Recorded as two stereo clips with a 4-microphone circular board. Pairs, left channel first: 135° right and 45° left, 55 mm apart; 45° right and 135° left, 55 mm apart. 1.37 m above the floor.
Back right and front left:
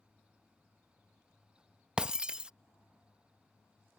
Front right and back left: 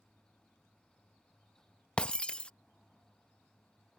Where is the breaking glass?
Straight ahead.